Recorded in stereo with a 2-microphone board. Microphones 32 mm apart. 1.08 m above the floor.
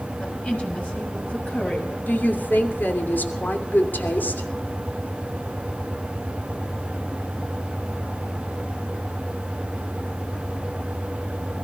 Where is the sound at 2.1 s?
80° left, 2.5 m.